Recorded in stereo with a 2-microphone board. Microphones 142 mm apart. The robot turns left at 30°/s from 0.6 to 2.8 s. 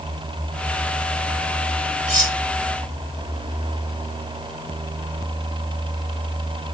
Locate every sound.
2.1 s cutlery clinking: 5° left (ahead or behind), 2 m; by 2.4 s 15° left (ahead or behind), 2 m